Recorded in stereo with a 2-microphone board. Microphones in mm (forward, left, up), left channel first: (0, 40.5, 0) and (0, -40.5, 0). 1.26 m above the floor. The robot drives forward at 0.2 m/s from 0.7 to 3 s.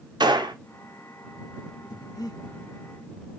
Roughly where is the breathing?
Left.